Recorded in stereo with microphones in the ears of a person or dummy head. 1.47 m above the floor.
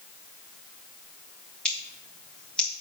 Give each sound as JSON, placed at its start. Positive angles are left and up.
{"t": 1.6, "sound": "scissors", "side_deg": 5, "distance_m": 2.5}